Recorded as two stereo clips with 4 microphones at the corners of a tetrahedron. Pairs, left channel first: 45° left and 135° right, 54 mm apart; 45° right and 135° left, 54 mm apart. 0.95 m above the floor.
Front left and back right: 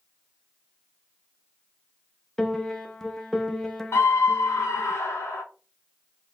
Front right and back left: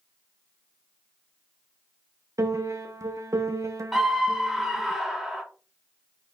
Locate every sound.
2.4 s a piano: 125° left, 0.7 m
3.9 s a scream: 50° left, 1.1 m